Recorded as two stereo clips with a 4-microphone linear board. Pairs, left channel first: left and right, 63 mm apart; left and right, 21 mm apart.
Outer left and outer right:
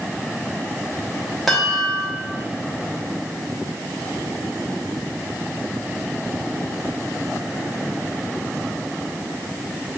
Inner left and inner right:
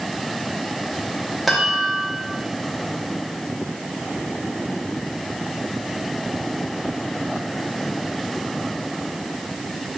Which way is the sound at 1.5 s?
Centre (ahead or behind).